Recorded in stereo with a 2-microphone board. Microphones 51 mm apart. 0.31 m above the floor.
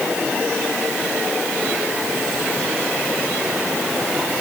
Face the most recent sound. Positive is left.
No sound to turn to.